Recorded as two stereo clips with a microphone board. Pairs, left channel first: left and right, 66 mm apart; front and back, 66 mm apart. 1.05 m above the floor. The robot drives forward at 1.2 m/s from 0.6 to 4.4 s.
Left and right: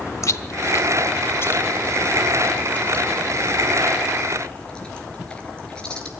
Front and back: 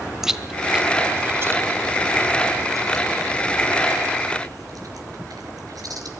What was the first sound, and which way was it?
Chewing, 100° left.